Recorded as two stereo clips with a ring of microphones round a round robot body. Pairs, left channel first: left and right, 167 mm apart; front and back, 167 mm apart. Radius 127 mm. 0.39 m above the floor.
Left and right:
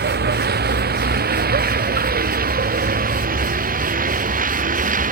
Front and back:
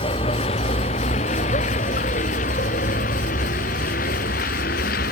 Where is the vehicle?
70° right; by 5.1 s 50° right.